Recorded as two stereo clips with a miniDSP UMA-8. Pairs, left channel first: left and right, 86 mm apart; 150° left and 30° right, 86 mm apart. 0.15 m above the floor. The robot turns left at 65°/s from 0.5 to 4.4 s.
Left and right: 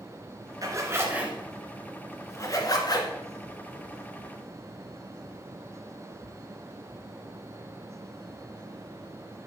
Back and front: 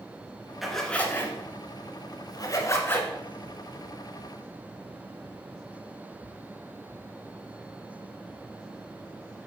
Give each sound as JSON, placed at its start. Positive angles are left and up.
{"t": 0.6, "sound": "a zipper", "azimuth_deg": -115, "distance_m": 1.3}